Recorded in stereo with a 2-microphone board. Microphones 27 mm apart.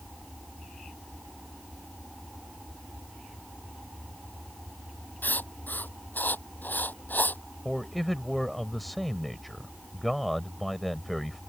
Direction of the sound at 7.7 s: Centre (ahead or behind).